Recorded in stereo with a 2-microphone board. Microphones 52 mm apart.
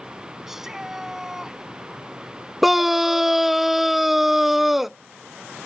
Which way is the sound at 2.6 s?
5° right (ahead or behind).